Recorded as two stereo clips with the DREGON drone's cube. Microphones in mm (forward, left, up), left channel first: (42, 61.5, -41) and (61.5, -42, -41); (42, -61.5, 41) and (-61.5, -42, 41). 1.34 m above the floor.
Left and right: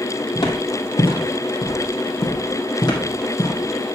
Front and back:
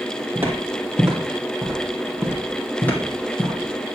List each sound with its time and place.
0.3 s footsteps: 105° left, 2 m; by 4.0 s 50° left, 3 m